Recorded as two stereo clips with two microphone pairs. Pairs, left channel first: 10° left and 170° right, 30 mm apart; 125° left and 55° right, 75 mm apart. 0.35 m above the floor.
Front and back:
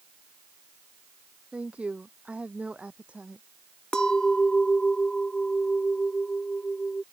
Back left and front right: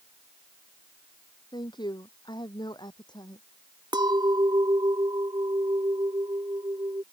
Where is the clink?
50° right.